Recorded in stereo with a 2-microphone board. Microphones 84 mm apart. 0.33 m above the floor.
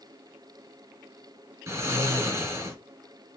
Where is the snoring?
35° right (ahead or behind), 2 m.